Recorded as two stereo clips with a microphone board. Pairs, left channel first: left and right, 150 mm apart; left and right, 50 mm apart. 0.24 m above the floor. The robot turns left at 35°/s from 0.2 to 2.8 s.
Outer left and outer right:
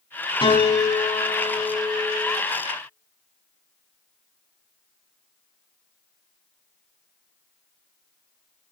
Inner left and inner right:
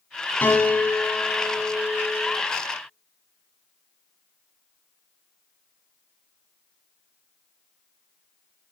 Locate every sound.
0.4 s a piano: 45° left, 1.1 m; by 2.4 s 25° right, 1.1 m